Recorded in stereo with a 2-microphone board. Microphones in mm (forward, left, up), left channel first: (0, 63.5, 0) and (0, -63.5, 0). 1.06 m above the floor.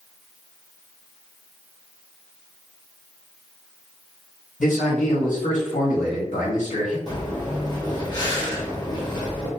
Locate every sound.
4.6 s a man speaking: 85° left, 1.6 m
7.1 s breathing: 35° left (ahead or behind), 0.9 m